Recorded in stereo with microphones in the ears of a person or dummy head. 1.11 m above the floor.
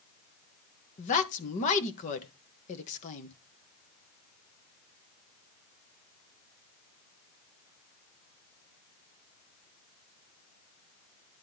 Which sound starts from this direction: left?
A woman speaking, at 1.0 s.